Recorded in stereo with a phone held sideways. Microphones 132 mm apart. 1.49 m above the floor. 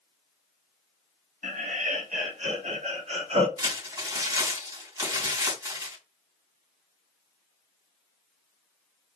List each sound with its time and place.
1.4 s laughter: 75° right (ahead or behind), 2.5 m; by 3.5 s 50° right (ahead or behind), 3 m
3.6 s crumpling: 25° right (ahead or behind), 3 m